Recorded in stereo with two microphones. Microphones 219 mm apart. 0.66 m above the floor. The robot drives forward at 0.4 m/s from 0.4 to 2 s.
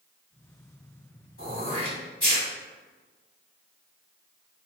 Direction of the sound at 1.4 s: 75° left (ahead or behind).